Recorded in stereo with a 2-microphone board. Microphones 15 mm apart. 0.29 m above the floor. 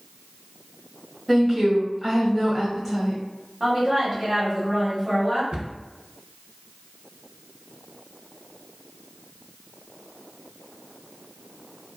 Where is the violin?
I don't hear a violin.